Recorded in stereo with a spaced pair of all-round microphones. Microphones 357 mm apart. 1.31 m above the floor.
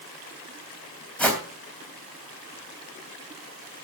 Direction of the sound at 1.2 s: 5° left (ahead or behind).